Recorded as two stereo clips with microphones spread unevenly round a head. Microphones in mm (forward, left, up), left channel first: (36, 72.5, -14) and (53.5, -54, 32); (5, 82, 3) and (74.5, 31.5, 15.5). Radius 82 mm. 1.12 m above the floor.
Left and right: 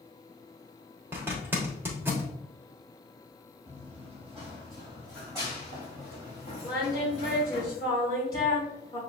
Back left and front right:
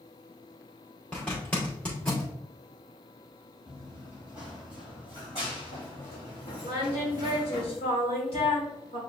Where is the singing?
170° left, 2.5 m.